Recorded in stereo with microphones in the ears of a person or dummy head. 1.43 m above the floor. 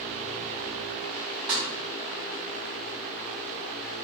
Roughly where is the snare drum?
Centre.